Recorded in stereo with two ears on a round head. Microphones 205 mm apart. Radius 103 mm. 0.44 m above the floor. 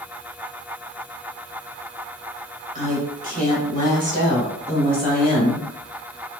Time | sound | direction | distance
2.8 | a woman speaking | 35° right (ahead or behind) | 1.0 m